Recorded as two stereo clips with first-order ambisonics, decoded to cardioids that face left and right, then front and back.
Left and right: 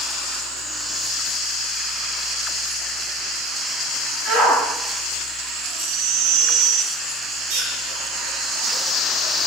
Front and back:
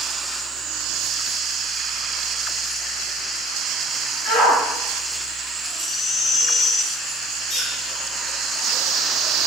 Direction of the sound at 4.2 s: 20° right.